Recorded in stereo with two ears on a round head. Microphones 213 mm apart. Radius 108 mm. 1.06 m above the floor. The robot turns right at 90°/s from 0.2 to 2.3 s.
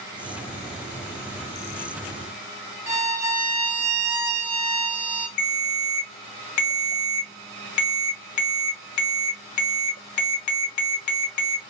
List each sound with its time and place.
2.9 s a violin: 10° right (ahead or behind), 0.7 m
5.4 s a ringtone: 75° left (ahead or behind), 0.9 m